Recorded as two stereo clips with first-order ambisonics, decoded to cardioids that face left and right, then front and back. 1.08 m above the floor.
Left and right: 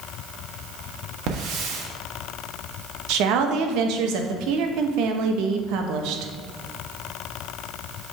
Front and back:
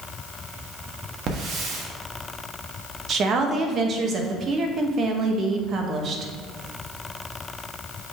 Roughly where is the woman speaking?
Behind right.